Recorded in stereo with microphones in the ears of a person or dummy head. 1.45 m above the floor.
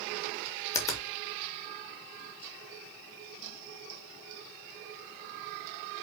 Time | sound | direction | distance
0.7 | a finger snap | 15° left (ahead or behind) | 0.7 m